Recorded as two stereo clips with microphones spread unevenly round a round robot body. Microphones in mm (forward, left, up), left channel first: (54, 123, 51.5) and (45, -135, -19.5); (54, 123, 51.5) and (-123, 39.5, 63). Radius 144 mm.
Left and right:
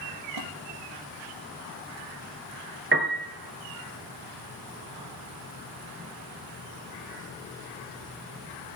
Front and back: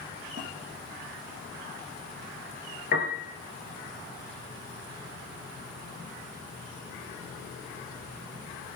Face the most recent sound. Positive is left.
turn(degrees=-40)